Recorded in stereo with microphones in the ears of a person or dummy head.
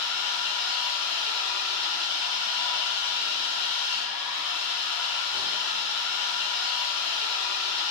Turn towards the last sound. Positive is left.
turn(degrees=-15)  # may be behind; listen again after turning